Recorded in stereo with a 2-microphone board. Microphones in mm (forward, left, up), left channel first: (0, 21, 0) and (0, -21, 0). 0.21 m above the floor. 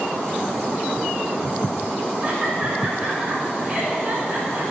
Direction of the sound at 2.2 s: 35° right (ahead or behind).